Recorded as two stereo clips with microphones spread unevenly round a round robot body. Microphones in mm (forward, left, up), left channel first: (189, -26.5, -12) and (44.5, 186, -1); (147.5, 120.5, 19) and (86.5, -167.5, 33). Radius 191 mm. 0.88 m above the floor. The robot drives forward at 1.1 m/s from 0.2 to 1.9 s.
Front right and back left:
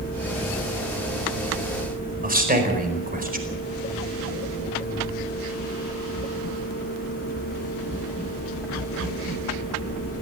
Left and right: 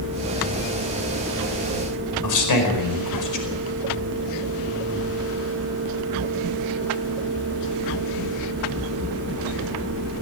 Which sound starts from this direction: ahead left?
A man speaking, at 2.2 s.